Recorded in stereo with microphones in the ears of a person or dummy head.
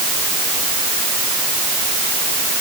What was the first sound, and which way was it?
Only background noise.